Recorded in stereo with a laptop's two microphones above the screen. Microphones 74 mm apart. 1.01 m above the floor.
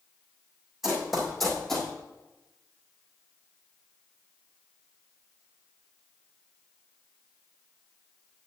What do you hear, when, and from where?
0.8 s running footsteps: 5° right (ahead or behind), 2.5 m; by 1.9 s 5° left (ahead or behind), 2 m